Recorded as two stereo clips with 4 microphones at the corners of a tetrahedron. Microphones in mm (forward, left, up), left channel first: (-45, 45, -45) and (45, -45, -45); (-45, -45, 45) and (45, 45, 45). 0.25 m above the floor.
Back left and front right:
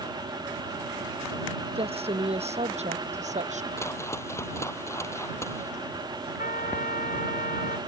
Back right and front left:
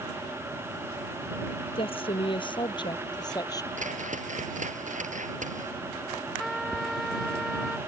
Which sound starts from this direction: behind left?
A trumpet, at 6.4 s.